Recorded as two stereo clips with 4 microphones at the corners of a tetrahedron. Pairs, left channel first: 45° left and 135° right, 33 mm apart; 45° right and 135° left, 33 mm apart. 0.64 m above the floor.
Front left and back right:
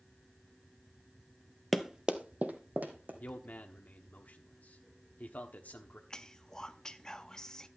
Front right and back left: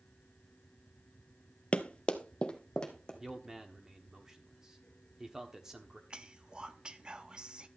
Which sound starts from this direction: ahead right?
Running footsteps, at 1.7 s.